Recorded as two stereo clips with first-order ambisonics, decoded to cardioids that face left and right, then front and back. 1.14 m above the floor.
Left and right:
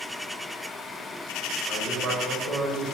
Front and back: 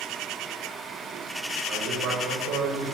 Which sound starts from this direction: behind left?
A man speaking, at 1.7 s.